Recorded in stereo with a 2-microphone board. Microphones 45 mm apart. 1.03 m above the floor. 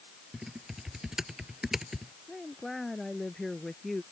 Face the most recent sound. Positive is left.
turn(degrees=5)  # may be behind; listen again after turning